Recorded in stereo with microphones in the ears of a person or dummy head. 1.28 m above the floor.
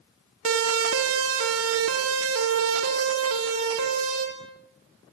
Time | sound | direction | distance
0.5 | a siren | 75° right (ahead or behind) | 2 m